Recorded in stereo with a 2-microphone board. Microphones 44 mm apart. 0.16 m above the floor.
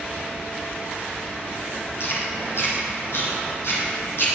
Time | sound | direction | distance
2.0 | chewing | 75° left (ahead or behind) | 5 m